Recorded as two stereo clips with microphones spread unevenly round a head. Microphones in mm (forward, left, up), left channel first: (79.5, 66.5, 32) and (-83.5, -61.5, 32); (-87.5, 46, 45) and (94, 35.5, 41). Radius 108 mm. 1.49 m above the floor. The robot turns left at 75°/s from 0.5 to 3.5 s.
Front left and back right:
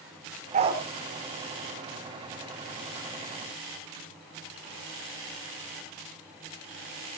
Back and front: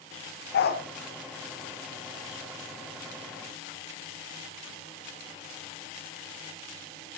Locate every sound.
0.5 s a dog barking: 165° left, 1.8 m; by 0.8 s 145° left, 1.8 m